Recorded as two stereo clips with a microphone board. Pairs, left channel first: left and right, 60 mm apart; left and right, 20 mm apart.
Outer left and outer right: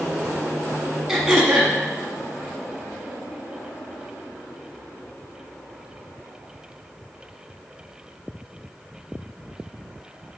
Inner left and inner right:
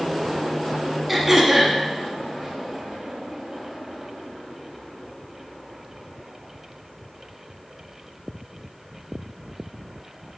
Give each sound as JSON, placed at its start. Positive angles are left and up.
{"t": 1.1, "sound": "throat clearing", "side_deg": -5, "distance_m": 1.4}